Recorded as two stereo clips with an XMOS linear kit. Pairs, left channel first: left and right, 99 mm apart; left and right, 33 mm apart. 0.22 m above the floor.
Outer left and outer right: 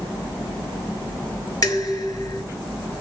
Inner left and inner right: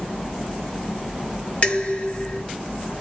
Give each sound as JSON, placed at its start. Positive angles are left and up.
{"t": 1.6, "sound": "dishes clattering", "side_deg": 35, "distance_m": 2.5}